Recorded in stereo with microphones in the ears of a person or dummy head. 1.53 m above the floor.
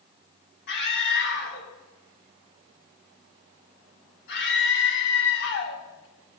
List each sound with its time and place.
0.7 s a scream: 65° left (ahead or behind), 4 m